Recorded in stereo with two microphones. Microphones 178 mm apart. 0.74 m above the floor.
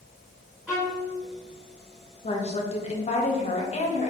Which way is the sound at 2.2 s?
40° left (ahead or behind).